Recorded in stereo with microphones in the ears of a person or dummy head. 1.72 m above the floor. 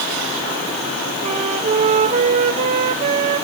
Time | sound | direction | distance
1.2 | a flute | 35° right (ahead or behind) | 0.7 m